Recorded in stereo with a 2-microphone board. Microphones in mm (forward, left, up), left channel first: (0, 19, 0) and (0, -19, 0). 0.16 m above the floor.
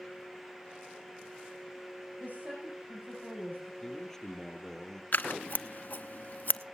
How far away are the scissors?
About 0.7 m.